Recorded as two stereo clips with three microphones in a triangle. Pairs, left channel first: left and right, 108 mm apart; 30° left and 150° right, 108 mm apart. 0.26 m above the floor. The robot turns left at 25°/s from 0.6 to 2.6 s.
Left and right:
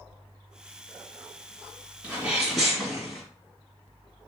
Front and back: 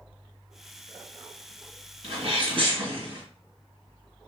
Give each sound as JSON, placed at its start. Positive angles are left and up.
{"t": 2.0, "sound": "a sneeze", "azimuth_deg": -165, "distance_m": 2.5}